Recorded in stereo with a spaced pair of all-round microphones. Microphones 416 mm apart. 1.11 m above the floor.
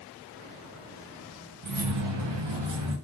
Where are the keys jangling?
45° right (ahead or behind), 0.5 m; by 2.9 s 75° right (ahead or behind), 0.9 m.